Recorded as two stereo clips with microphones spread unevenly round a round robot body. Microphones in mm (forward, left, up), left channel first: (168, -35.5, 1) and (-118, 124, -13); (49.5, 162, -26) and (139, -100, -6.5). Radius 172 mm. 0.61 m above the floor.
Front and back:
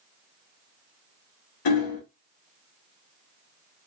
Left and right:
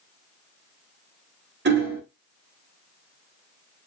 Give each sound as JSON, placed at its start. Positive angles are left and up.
{"t": 1.6, "sound": "hammering", "azimuth_deg": -20, "distance_m": 0.8}